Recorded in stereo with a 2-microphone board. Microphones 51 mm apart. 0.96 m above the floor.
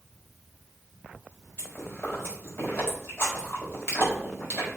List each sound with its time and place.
1.6 s chewing: 55° left (ahead or behind), 4 m